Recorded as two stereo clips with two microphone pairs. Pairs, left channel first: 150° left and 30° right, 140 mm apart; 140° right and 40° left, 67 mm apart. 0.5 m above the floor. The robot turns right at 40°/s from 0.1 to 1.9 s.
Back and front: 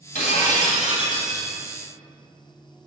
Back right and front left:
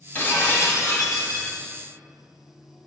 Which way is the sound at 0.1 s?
160° left.